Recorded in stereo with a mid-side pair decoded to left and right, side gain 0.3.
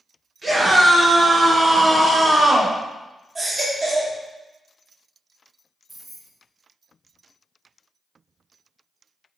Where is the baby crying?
35° right, 2.5 m.